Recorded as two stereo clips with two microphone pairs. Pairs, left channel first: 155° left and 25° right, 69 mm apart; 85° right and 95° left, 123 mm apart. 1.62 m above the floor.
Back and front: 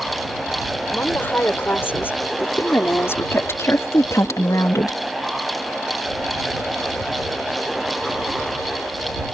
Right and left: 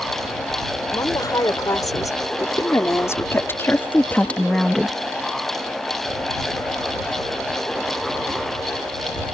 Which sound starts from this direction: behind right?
A woman speaking, at 0.9 s.